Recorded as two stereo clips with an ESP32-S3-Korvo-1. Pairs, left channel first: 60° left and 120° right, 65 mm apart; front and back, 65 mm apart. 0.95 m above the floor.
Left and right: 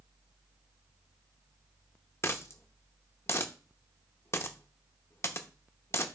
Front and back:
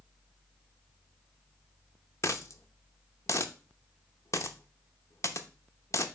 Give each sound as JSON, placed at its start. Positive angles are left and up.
{"t": 2.2, "sound": "a dropped coin", "azimuth_deg": 25, "distance_m": 0.7}